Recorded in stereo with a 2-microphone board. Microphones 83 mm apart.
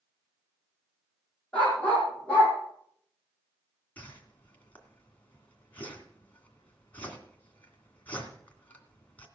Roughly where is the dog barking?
Centre.